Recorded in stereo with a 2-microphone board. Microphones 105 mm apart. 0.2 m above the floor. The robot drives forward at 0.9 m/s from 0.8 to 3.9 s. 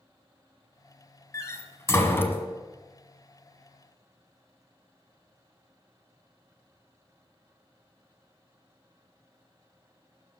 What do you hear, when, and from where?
1.3 s a door slam: 30° left (ahead or behind), 1.0 m; by 2.4 s 20° left (ahead or behind), 1.3 m